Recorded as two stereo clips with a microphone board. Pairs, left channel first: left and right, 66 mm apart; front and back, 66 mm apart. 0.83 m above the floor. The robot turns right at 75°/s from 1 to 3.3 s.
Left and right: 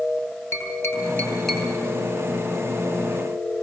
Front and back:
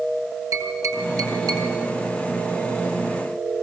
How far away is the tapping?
About 9.5 m.